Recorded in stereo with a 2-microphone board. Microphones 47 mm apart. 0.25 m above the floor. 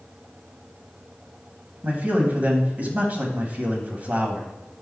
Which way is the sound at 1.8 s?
35° right (ahead or behind).